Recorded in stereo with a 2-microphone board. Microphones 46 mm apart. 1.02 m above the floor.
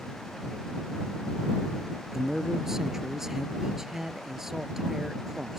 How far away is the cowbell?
I don't hear a cowbell.